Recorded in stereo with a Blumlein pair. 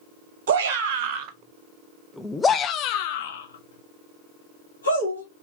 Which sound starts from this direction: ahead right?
A shout, at 0.5 s.